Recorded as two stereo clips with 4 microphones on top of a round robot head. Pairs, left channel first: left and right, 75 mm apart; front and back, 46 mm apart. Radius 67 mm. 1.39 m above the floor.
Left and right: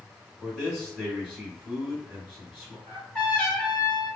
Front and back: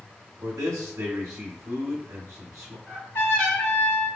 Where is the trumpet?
10° left, 1.3 m.